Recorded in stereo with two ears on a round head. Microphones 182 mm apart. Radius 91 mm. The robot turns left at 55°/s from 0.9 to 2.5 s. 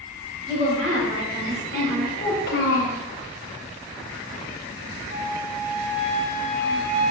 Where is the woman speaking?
25° right, 1.8 m; by 2.1 s 90° right, 1.8 m.